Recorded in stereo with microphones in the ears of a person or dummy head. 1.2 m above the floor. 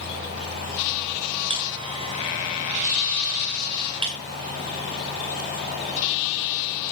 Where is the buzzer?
25° right (ahead or behind), 1.4 m.